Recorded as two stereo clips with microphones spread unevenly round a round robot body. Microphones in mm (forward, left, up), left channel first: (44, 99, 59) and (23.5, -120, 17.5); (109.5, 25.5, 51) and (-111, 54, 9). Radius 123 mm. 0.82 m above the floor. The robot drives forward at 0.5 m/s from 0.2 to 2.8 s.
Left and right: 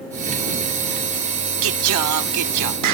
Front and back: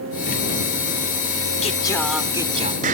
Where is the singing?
65° right; by 3.0 s 125° right.